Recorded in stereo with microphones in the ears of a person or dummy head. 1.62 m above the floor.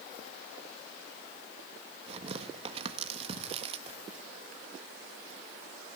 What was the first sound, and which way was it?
Tearing paper, 40° right (ahead or behind).